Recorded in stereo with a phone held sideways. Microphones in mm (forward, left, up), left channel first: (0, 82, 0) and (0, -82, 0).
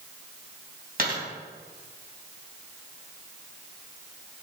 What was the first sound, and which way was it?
A dropped coin, 55° right (ahead or behind).